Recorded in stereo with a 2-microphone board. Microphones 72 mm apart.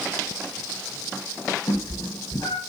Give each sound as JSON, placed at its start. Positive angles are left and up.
{"t": 1.7, "sound": "a cat meowing", "side_deg": 70, "distance_m": 1.8}